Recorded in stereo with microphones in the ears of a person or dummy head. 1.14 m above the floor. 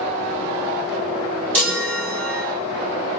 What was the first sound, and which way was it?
A chime, 10° left (ahead or behind).